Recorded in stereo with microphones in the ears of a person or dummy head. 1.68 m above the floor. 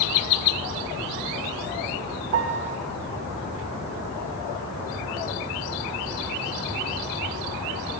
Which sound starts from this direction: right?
A piano, at 2.3 s.